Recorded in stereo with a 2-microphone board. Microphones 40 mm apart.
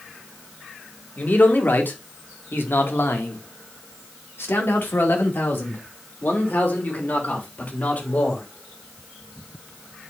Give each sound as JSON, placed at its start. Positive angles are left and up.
{"t": 1.2, "sound": "a man speaking", "side_deg": 45, "distance_m": 2.5}